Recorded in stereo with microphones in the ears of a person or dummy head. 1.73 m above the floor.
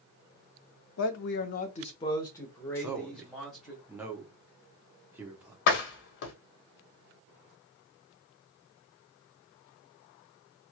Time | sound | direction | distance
1.0 | a man speaking | 80° left | 0.6 m
2.8 | a man speaking | 10° right (ahead or behind) | 0.8 m
5.7 | a door slam | 60° left (ahead or behind) | 0.9 m